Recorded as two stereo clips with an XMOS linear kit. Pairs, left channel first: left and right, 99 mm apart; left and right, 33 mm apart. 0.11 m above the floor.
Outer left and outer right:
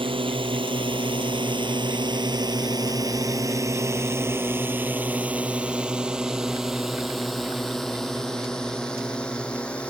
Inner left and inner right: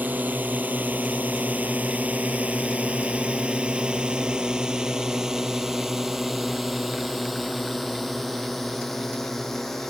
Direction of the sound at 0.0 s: 60° right (ahead or behind).